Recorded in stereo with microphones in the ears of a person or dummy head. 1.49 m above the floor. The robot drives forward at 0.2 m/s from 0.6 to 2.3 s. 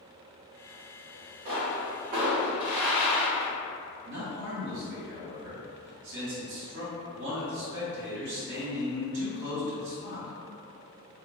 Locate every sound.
1.4 s a pop: 55° right (ahead or behind), 1.0 m; by 3.5 s 45° right (ahead or behind), 1.1 m
4.0 s a man speaking: 60° right (ahead or behind), 1.2 m